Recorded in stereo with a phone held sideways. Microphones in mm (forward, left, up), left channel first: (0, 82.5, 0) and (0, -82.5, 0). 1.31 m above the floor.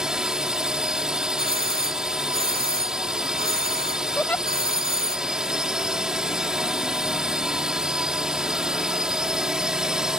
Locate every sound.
0.0 s a drone: 5° right (ahead or behind)
1.4 s a doorbell: 70° right (ahead or behind)
4.2 s a giggle: 10° left (ahead or behind)